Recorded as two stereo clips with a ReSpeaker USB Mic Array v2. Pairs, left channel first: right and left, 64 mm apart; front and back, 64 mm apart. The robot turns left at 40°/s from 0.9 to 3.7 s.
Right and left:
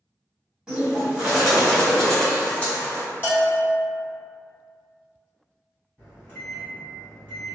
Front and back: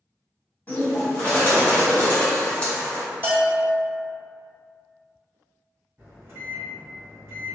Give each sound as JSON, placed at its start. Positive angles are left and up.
{"t": 0.7, "sound": "a bird", "azimuth_deg": 25, "distance_m": 1.4}
{"t": 3.2, "sound": "a bell", "azimuth_deg": -135, "distance_m": 1.6}
{"t": 6.0, "sound": "a microwave", "azimuth_deg": -140, "distance_m": 1.8}